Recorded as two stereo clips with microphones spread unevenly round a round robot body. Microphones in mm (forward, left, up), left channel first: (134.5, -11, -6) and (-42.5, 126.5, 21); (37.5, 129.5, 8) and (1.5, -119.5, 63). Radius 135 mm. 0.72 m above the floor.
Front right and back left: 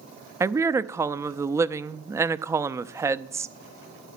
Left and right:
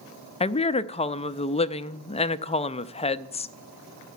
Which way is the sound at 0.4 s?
60° left.